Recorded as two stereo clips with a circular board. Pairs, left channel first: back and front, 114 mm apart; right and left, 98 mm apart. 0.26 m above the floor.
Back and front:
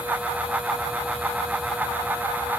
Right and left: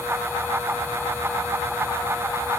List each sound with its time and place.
Only background noise.